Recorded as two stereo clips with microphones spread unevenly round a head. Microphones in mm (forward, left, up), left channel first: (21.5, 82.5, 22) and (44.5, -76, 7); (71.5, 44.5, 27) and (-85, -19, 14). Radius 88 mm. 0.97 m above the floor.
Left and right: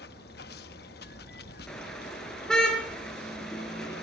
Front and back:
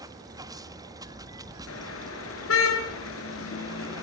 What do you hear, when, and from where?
0.0 s running water: 135° left, 1.4 m
1.7 s a car horn: 15° left, 6.5 m